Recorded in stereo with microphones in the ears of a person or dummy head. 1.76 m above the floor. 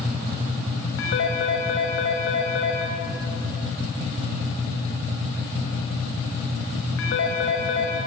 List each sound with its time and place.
1.0 s a phone ringing: 75° left (ahead or behind), 6 m